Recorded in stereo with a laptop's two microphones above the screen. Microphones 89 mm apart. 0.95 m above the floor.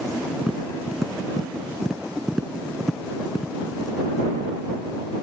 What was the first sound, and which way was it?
Tapping, 5° right (ahead or behind).